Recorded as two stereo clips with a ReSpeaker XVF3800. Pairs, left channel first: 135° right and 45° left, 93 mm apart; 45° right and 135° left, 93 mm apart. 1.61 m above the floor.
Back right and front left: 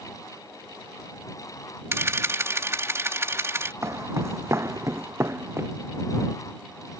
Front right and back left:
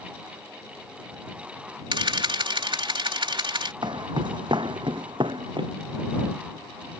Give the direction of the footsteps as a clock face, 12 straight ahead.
9 o'clock.